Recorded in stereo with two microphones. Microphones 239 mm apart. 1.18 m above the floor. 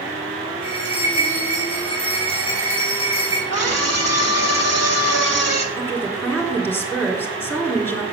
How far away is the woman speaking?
About 3 m.